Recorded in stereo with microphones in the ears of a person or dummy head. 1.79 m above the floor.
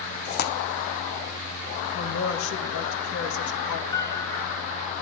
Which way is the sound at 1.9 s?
85° left.